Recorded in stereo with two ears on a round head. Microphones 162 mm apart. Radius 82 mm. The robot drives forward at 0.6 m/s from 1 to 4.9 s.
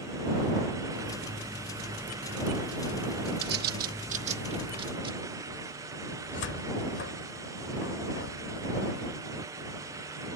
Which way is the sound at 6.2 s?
70° left (ahead or behind).